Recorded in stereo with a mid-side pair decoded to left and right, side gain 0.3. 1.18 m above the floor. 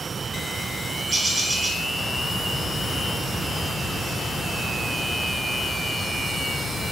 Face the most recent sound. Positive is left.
turn(degrees=-45)